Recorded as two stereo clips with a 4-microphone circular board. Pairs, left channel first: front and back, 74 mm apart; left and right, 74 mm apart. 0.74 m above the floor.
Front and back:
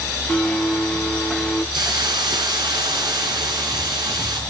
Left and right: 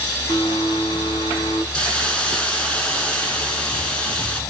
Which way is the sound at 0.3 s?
90° left.